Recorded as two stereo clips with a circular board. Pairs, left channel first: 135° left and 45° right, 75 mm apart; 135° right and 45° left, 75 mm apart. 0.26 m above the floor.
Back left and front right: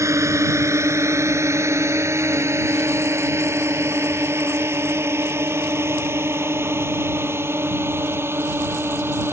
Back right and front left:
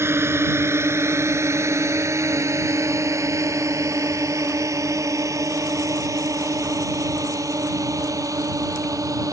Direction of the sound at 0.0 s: 5° right.